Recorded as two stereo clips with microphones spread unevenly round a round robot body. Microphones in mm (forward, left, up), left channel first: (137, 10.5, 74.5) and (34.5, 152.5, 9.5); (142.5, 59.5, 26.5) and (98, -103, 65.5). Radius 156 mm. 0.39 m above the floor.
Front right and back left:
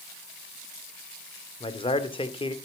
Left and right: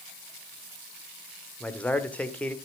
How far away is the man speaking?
About 1.5 m.